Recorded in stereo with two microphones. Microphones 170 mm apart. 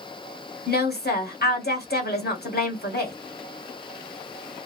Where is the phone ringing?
No phone ringing in this recording.